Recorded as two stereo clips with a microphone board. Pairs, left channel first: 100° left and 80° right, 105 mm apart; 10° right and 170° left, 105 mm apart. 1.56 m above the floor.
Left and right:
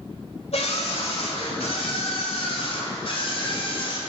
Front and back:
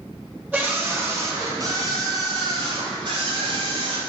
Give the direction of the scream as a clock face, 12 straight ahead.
9 o'clock.